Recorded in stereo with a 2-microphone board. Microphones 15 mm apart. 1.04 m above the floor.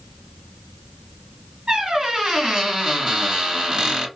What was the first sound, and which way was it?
A squeak, 45° right (ahead or behind).